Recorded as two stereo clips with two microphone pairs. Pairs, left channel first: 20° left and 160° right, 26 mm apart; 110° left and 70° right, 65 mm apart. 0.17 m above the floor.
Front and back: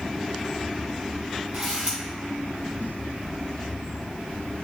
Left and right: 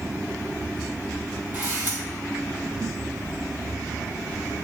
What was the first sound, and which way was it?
A camera shutter, 135° right.